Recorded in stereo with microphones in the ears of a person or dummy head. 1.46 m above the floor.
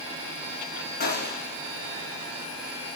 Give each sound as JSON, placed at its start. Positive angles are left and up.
{"t": 1.0, "sound": "a gunshot", "side_deg": 60, "distance_m": 4.5}